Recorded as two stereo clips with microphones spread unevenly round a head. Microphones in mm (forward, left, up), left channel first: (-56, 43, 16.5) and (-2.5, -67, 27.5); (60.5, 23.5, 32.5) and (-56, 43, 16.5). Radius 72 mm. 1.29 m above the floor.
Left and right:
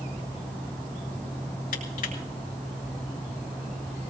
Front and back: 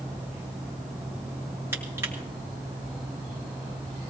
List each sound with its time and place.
1.7 s crushing: 105° left, 3.5 m